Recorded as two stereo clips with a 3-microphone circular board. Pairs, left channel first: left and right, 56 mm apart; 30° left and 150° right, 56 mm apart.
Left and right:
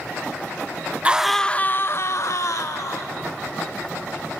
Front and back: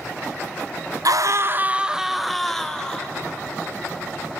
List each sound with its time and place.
1.1 s a scream: 160° right, 0.7 m; by 3.1 s 105° left, 2 m